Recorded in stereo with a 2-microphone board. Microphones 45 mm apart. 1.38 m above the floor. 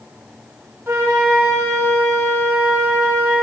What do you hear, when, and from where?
0.9 s a flute: 70° right (ahead or behind), 1.7 m